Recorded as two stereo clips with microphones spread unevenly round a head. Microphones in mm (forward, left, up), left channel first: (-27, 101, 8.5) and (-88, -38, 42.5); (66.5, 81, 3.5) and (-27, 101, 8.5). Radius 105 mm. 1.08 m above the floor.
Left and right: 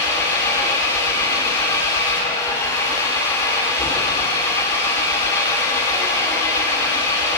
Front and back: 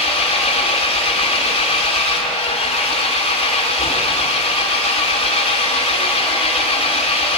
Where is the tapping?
I don't hear tapping.